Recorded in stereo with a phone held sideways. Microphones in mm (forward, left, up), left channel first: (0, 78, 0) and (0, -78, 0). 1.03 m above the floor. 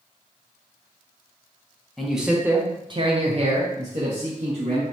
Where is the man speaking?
Centre (ahead or behind), 0.8 m; by 4.8 s 50° right (ahead or behind), 1.5 m.